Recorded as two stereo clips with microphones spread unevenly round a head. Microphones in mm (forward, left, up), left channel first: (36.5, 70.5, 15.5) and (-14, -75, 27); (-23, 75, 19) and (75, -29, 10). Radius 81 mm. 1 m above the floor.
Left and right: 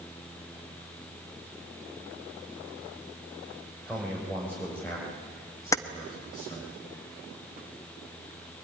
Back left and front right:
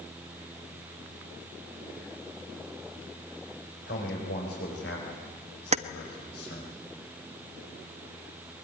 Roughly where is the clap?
I don't hear a clap.